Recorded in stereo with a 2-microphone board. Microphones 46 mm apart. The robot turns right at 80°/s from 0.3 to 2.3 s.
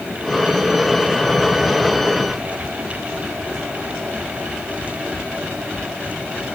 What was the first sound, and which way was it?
Only background noise.